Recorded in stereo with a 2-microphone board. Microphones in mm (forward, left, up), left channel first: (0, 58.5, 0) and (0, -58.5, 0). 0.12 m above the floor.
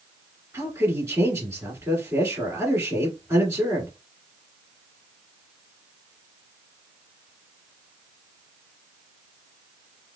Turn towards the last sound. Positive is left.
turn(degrees=-25)  # may be behind; listen again after turning